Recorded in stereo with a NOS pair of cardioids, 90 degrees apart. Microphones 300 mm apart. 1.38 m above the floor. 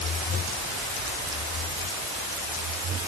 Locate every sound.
Only background noise.